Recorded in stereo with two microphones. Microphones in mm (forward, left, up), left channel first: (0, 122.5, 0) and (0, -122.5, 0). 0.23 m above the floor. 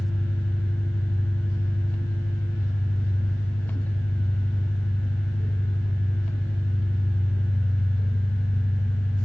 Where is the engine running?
60° right (ahead or behind), 9.5 m.